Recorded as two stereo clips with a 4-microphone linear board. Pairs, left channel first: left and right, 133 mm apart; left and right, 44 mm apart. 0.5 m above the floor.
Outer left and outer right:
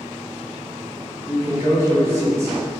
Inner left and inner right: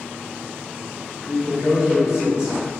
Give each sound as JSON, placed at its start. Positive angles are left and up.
{"t": 1.2, "sound": "a man speaking", "side_deg": -20, "distance_m": 1.3}